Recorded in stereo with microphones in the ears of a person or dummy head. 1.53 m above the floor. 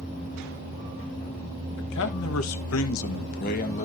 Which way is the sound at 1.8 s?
65° left (ahead or behind).